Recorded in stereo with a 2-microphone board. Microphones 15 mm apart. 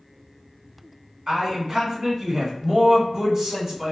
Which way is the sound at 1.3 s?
30° right (ahead or behind).